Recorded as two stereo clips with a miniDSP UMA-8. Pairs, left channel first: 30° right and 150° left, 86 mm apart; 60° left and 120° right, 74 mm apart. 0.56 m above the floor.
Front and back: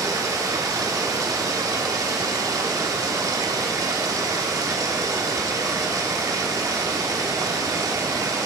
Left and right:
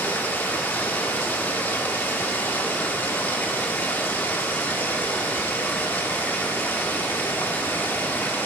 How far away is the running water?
About 0.8 m.